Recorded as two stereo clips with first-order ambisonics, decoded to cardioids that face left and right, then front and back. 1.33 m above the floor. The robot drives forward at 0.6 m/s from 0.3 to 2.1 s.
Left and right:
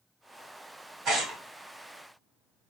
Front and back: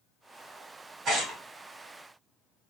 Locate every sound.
1.1 s tearing paper: 135° right, 1.8 m; by 1.4 s 140° right, 1.9 m